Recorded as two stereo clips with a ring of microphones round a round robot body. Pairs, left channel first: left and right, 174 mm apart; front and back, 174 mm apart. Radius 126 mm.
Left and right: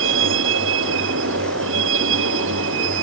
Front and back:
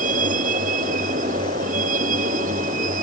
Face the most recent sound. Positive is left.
turn(degrees=-120)